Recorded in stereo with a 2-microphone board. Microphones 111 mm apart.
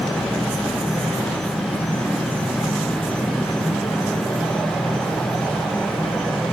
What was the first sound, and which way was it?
An insect, 10° right (ahead or behind).